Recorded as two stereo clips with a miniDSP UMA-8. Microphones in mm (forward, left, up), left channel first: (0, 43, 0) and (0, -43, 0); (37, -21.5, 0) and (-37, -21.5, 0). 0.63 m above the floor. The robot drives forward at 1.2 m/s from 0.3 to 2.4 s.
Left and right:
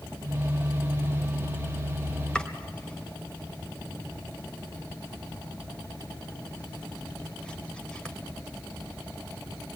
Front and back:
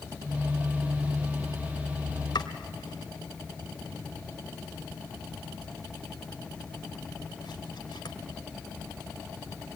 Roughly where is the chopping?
Ahead.